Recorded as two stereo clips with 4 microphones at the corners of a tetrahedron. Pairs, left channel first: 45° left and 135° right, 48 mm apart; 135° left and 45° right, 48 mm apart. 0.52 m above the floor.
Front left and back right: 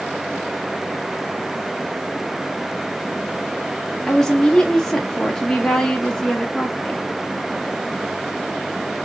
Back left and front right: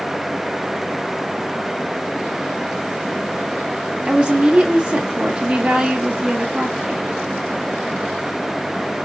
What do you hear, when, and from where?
4.1 s a woman speaking: 15° right, 0.8 m